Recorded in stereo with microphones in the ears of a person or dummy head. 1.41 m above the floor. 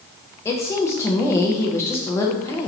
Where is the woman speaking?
20° left (ahead or behind), 0.6 m.